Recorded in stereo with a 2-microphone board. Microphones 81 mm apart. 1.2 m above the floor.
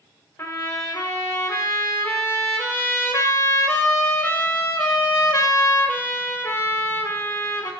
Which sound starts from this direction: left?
A trumpet, at 0.4 s.